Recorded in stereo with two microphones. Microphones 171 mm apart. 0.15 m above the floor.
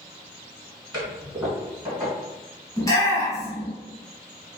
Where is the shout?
20° left (ahead or behind), 1.1 m.